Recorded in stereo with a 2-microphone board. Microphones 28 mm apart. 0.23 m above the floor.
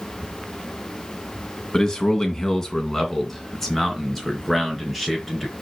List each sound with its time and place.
1.7 s a man speaking: 25° left (ahead or behind), 2 m; by 5.5 s 5° left (ahead or behind), 4 m